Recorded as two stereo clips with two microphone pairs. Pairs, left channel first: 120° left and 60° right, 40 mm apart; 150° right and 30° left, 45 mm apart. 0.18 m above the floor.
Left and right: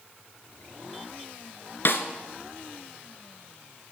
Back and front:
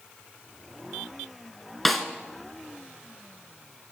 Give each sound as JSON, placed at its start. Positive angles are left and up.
{"t": 1.9, "sound": "a snare drum", "azimuth_deg": 120, "distance_m": 0.9}